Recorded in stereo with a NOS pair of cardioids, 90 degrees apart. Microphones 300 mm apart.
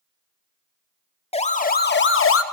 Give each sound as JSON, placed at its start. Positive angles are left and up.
{"t": 1.3, "sound": "a siren", "azimuth_deg": 20, "distance_m": 2.0}